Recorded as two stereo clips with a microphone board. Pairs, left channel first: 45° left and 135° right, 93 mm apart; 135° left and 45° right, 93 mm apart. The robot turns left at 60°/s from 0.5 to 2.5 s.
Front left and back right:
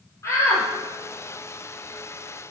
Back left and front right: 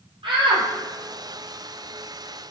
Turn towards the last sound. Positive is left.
turn(degrees=-135)